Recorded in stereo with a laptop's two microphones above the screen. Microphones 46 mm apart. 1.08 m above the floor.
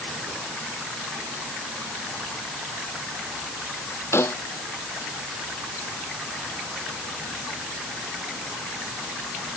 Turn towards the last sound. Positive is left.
turn(degrees=65)  # may be behind; listen again after turning